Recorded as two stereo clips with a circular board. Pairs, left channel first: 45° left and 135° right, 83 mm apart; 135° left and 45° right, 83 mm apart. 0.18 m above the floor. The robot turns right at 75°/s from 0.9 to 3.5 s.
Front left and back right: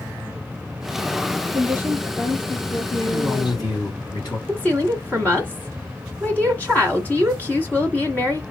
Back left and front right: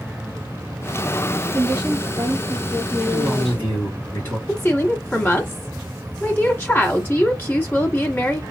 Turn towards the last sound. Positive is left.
turn(degrees=100)